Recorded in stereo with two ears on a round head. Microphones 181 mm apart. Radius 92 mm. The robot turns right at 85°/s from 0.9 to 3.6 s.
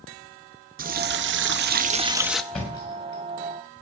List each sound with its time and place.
0.8 s a running tap: 125° right, 0.7 m; by 2.4 s 5° left, 0.7 m
2.5 s a thud: centre (ahead or behind), 5 m; by 3.2 s 60° left (ahead or behind), 5 m